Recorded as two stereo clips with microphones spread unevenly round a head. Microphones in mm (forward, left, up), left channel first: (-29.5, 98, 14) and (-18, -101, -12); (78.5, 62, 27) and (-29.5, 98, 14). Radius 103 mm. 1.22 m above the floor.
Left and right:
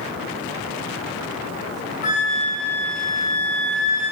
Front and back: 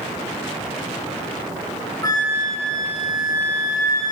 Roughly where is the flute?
Ahead left.